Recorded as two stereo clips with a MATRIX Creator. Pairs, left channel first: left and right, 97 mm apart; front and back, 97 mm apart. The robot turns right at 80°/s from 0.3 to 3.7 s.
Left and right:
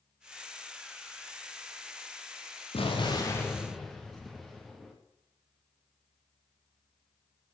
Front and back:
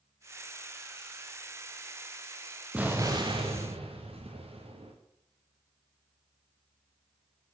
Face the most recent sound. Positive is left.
turn(degrees=175)